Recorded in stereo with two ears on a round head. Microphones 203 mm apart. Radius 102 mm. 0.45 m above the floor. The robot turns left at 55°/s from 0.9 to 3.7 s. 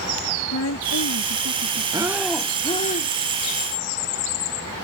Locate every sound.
0.5 s a woman speaking: 95° left; by 1.8 s 45° left
1.9 s breathing: 160° right; by 3.1 s 135° left